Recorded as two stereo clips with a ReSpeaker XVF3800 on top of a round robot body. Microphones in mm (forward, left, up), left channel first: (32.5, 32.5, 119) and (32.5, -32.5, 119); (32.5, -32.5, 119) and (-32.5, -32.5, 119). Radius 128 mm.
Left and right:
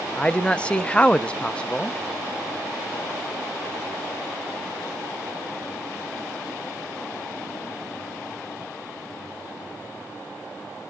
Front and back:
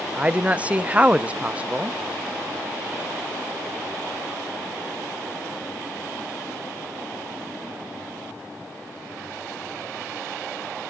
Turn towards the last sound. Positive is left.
turn(degrees=140)